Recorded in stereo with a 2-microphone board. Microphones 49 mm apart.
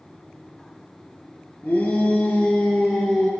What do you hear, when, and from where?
1.6 s a shout: 25° left (ahead or behind), 1.8 m; by 3.3 s 10° right (ahead or behind), 2.5 m